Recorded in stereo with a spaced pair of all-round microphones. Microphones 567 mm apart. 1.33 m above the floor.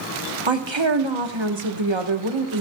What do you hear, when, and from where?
0.5 s a woman speaking: 50° right (ahead or behind), 1.1 m